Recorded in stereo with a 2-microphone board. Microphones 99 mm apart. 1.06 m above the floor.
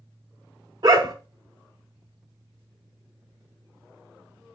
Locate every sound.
0.8 s a dog barking: 40° right (ahead or behind), 0.8 m